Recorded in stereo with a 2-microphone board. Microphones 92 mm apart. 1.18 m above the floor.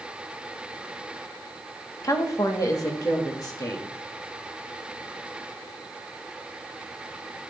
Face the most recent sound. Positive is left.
turn(degrees=40)  # may be behind; listen again after turning